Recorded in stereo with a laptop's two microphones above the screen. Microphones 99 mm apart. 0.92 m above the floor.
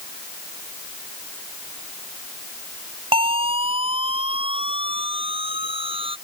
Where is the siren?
65° right (ahead or behind).